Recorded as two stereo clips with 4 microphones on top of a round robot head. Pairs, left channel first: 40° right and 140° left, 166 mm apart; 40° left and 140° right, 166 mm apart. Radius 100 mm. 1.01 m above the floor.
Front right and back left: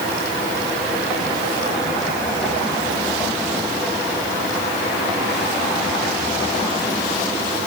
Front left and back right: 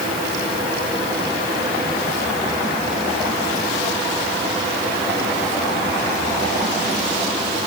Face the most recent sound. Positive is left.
No sound to turn to.